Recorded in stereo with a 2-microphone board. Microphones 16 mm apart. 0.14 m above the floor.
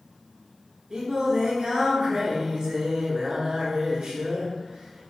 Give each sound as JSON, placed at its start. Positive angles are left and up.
{"t": 0.9, "sound": "singing", "side_deg": -50, "distance_m": 0.8}